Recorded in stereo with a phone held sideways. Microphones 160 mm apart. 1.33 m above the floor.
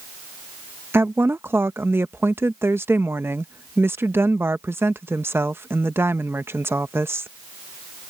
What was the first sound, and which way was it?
A woman speaking, 15° right (ahead or behind).